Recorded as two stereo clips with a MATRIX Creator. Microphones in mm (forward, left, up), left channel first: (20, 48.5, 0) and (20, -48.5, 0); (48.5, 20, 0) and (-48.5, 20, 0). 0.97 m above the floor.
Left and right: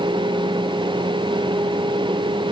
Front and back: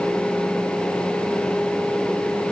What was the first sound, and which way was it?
Only background noise.